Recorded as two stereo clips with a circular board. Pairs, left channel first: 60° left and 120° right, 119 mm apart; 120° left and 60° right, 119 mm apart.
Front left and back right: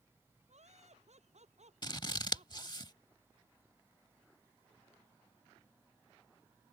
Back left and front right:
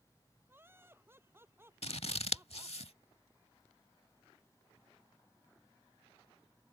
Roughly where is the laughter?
Behind right.